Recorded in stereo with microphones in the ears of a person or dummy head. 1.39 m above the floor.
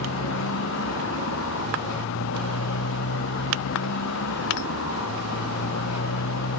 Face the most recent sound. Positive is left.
turn(degrees=60)  # may be behind; listen again after turning